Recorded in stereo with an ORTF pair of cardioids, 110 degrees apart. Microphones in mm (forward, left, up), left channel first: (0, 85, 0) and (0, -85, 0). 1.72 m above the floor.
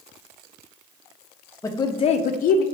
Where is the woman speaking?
20° left, 0.7 m; by 2.6 s 70° left, 0.6 m.